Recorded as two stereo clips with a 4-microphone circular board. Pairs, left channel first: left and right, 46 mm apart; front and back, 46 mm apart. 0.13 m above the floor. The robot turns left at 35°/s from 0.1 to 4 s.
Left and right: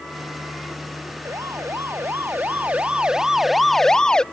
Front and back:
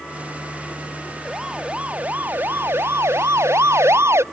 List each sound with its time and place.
1.2 s a siren: 95° right; by 4.2 s 165° left